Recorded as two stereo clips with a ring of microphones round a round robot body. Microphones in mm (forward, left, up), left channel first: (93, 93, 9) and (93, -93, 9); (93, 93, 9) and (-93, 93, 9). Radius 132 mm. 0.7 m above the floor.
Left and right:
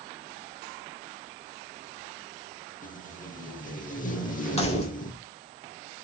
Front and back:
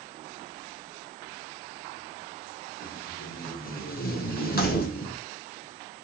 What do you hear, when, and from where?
2.8 s tape being pulled: 40° left, 1.0 m
4.6 s keys jangling: 35° left, 1.3 m